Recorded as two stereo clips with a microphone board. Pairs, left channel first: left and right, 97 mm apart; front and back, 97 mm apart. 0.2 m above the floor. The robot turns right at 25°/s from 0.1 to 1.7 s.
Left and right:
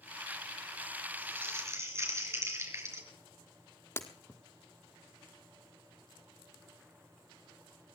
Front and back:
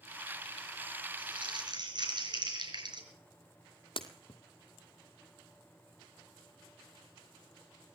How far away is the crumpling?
About 4.5 m.